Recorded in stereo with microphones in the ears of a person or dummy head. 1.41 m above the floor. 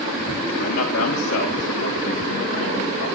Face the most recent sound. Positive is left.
turn(degrees=70)  # may be behind; listen again after turning